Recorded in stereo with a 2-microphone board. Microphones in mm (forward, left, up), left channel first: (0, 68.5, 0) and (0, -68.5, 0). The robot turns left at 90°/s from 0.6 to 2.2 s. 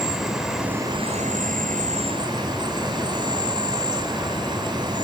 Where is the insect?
Straight ahead, 7 m; by 5.0 s 145° right, 7 m.